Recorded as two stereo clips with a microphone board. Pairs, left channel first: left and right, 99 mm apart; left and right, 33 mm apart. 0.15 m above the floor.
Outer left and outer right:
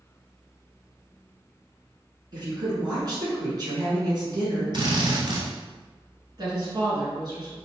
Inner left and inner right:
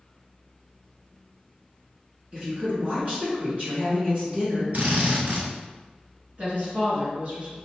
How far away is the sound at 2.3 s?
About 2.0 m.